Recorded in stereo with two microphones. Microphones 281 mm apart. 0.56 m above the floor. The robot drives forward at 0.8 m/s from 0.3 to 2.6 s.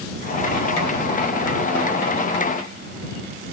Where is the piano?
No piano in this recording.